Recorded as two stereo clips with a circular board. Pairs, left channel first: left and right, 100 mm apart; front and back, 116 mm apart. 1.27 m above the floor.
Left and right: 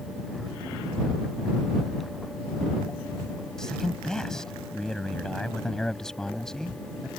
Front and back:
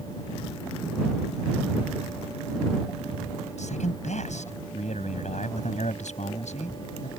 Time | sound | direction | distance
3.6 | a man speaking | 5° left | ?